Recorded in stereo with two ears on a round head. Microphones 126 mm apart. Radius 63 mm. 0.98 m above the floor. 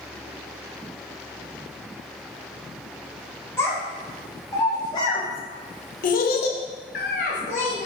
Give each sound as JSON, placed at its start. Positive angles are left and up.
{"t": 3.6, "sound": "a child speaking", "side_deg": 15, "distance_m": 1.6}